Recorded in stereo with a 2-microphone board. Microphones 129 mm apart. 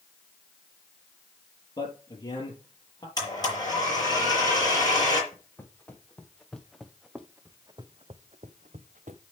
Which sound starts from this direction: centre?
Footsteps, at 5.3 s.